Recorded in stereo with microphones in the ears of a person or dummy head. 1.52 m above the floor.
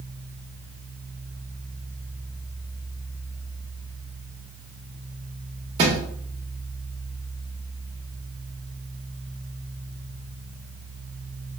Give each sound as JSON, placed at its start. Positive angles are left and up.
{"t": 5.8, "sound": "a thud", "side_deg": -30, "distance_m": 0.9}